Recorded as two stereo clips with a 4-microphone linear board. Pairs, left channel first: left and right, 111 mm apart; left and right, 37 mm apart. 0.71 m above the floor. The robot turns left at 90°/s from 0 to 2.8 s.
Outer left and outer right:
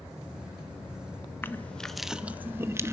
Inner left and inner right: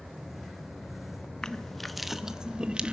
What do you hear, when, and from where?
1.4 s crushing: 20° left (ahead or behind), 0.9 m; by 2.9 s 25° right (ahead or behind), 0.9 m